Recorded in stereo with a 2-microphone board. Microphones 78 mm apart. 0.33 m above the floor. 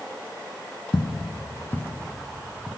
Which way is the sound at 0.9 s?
70° left (ahead or behind).